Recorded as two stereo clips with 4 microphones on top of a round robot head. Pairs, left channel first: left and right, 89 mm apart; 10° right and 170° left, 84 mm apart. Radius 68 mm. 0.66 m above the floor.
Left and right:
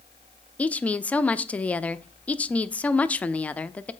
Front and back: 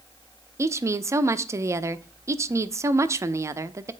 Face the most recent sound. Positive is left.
turn(degrees=155)